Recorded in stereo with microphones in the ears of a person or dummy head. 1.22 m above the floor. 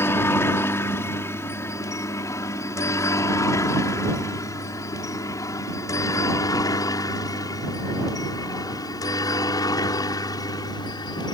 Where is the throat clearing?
No throat clearing in this recording.